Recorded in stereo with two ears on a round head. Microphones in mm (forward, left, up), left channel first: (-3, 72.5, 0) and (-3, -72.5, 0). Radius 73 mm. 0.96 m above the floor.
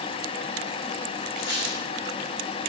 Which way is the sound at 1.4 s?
60° left (ahead or behind).